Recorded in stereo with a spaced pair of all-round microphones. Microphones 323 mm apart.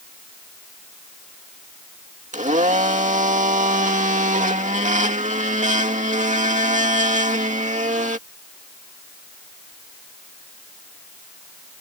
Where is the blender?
25° right (ahead or behind).